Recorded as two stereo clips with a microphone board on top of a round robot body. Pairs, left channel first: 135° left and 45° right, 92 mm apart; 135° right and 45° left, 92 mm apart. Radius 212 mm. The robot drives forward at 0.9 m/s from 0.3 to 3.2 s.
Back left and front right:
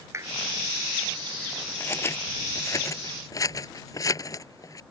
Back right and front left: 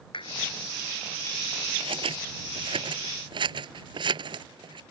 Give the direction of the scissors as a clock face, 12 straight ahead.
10 o'clock.